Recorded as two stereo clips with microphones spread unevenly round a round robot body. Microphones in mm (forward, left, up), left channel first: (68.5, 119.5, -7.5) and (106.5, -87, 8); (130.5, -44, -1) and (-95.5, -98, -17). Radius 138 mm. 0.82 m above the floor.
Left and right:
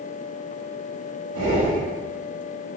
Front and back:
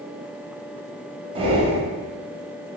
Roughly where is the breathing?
Right.